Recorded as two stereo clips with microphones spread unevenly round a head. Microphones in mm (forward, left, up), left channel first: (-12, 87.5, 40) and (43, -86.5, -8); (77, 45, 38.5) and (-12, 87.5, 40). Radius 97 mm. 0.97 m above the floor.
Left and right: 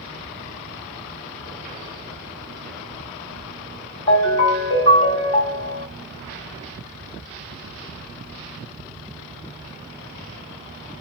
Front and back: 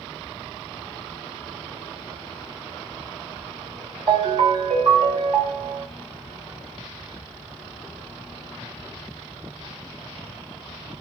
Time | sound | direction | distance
4.1 | a ringtone | 130° left | 1.8 m